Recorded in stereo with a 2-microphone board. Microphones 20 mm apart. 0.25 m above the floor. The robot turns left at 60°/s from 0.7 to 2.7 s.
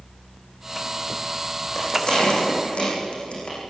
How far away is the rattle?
About 9.5 m.